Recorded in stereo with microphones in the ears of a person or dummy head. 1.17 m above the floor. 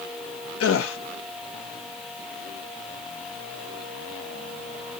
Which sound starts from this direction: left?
A gasp, at 0.6 s.